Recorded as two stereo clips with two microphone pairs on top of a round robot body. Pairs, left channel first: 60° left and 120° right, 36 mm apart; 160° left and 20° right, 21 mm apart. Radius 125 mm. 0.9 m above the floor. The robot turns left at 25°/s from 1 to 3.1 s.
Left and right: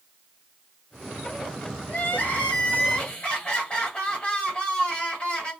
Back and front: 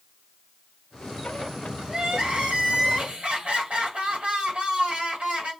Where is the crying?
20° left, 1.4 m; by 5.5 s 10° right, 1.4 m.